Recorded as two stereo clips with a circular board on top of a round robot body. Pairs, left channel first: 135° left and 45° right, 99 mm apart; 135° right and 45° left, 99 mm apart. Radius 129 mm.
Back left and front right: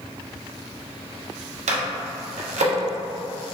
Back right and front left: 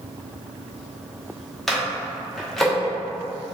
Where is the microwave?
50° right, 0.7 m.